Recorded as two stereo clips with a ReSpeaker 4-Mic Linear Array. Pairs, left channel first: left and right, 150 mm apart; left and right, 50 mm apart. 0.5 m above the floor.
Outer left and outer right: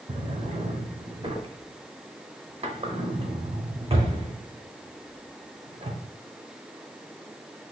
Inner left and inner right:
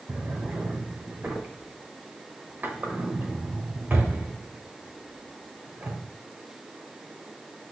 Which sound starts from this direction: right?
A drawer, at 0.1 s.